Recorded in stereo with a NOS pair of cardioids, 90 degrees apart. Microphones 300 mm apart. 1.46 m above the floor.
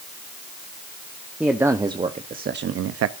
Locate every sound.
1.4 s a man speaking: 5° right, 1.1 m; by 3.1 s 65° right, 0.7 m